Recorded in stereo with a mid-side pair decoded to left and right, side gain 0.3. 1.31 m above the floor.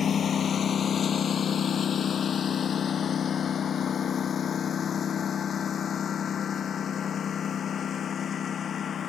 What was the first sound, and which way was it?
A lawn mower, 65° left.